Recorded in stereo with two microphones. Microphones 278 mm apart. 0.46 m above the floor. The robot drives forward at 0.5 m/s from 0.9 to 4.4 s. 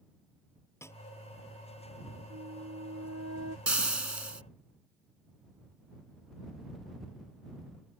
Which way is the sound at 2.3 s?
70° right (ahead or behind).